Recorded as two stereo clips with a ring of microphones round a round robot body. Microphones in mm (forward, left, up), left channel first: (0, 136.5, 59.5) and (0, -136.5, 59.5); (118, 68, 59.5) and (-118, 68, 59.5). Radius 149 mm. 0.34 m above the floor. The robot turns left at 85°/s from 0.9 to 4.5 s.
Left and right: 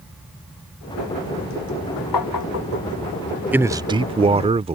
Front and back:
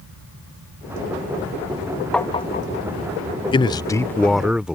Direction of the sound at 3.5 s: 15° right.